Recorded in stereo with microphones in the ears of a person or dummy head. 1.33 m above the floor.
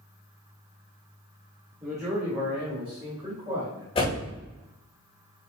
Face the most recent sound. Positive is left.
turn(degrees=25)  # may be behind; listen again after turning